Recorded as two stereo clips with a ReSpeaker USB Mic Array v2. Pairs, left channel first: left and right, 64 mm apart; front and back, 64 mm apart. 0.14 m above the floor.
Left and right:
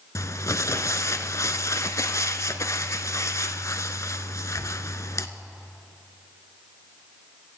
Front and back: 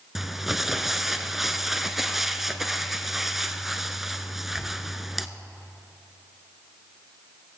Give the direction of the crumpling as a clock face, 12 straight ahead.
9 o'clock.